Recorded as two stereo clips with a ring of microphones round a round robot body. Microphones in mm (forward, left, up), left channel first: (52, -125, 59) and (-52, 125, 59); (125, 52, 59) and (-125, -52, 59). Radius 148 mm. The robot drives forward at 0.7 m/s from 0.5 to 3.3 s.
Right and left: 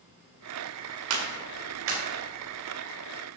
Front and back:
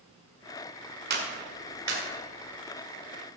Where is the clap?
150° left, 1.9 m; by 2.0 s 155° left, 2.5 m.